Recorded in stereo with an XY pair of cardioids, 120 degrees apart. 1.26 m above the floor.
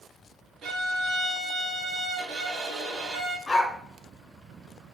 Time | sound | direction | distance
0.6 | a violin | 65° right | 3.5 m
3.5 | a dog barking | 20° left | 3 m